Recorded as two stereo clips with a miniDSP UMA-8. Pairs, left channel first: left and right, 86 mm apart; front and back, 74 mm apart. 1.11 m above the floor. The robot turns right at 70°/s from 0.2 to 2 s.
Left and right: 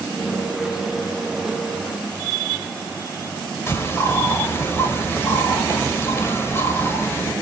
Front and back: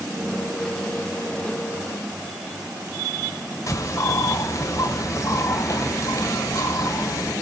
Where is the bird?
35° left, 1.5 m.